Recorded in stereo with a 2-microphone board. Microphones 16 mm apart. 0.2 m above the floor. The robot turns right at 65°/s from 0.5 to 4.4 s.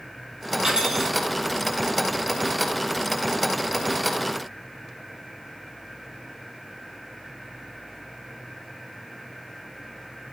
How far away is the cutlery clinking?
About 3.5 m.